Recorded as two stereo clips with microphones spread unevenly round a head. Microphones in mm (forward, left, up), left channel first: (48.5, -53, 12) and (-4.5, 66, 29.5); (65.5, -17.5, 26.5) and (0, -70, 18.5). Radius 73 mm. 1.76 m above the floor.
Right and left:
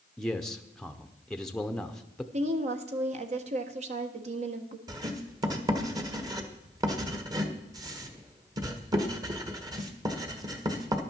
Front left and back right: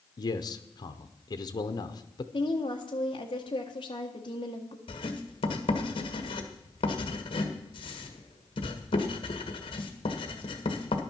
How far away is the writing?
About 1.4 m.